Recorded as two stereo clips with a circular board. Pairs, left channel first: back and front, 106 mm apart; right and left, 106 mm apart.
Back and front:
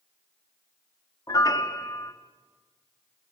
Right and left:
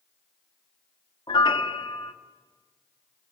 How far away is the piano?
About 1.2 m.